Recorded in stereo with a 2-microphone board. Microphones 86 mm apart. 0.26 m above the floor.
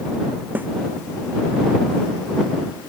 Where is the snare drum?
20° right (ahead or behind).